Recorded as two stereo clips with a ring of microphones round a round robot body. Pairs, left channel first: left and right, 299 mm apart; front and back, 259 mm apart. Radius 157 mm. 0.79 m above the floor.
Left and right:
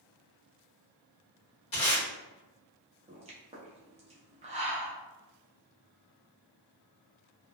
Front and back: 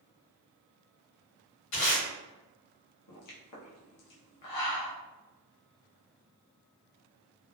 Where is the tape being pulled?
20° left, 1.5 m.